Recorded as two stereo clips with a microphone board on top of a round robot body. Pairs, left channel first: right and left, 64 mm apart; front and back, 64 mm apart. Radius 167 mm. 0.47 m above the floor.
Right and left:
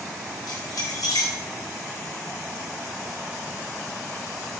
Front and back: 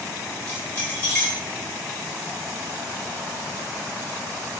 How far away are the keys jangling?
About 6 m.